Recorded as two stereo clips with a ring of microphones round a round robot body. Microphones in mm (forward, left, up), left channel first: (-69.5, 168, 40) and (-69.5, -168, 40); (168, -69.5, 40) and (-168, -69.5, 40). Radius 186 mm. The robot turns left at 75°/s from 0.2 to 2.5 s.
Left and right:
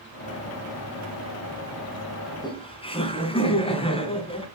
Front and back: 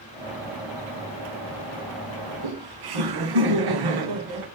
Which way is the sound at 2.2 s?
175° right.